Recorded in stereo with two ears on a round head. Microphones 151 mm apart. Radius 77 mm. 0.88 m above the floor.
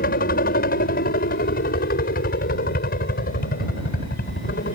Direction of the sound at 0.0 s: 60° left (ahead or behind).